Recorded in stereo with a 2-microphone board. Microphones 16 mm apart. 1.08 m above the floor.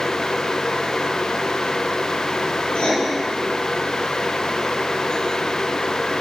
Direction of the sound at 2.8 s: 80° left.